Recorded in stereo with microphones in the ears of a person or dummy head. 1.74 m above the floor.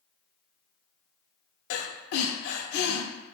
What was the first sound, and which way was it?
Breathing, 70° left (ahead or behind).